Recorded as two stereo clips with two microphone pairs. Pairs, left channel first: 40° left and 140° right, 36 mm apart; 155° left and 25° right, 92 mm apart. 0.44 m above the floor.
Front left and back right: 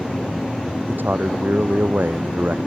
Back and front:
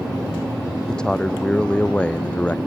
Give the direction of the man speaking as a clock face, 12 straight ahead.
4 o'clock.